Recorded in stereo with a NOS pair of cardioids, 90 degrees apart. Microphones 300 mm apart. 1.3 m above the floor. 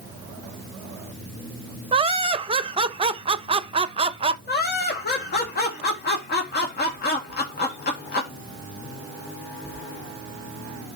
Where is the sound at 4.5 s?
30° left, 1.9 m.